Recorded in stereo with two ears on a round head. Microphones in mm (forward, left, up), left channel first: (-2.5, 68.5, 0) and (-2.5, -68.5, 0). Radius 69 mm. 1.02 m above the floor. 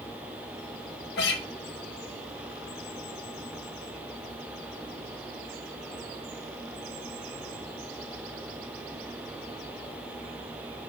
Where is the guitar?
80° left, 1.6 m.